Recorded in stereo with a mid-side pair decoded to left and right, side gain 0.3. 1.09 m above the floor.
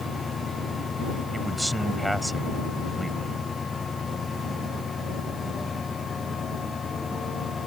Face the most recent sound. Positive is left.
turn(degrees=-10)